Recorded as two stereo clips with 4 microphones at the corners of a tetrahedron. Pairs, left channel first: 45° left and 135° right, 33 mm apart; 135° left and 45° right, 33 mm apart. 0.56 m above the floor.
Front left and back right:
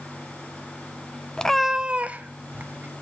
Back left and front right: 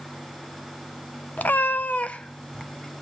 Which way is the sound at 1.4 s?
110° left.